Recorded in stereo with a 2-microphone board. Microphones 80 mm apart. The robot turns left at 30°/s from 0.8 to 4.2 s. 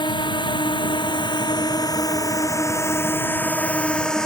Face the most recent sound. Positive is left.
turn(degrees=10)  # may be behind; listen again after turning